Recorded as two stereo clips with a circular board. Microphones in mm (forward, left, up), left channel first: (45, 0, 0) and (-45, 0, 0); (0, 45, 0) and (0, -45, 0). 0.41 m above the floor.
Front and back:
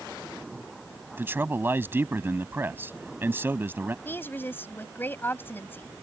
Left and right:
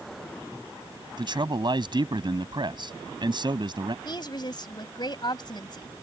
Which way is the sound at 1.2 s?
115° right.